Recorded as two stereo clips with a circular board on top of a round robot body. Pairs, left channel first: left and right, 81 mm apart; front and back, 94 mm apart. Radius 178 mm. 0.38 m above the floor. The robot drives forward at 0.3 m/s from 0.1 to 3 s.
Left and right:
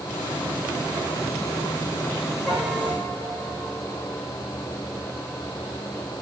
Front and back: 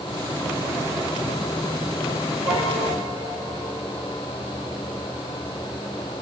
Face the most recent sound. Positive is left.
turn(degrees=-170)